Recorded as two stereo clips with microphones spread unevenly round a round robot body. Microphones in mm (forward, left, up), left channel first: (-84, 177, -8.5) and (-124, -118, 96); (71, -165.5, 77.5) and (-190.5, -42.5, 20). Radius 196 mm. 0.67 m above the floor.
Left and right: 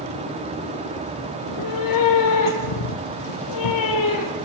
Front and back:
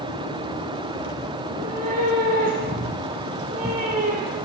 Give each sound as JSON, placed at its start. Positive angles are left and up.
{"t": 1.4, "sound": "a cat meowing", "azimuth_deg": 85, "distance_m": 3.0}